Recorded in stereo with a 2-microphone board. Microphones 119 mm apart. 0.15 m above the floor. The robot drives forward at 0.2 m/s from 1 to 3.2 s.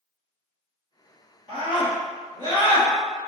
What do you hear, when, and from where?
1.5 s a scream: 45° left (ahead or behind), 1.5 m